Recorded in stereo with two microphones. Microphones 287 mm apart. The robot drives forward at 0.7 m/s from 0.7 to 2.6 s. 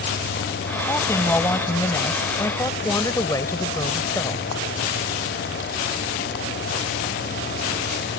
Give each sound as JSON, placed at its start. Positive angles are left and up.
{"t": 0.9, "sound": "a woman speaking", "side_deg": 10}